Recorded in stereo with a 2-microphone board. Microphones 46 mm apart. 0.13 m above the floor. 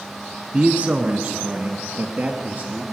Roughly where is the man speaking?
Right.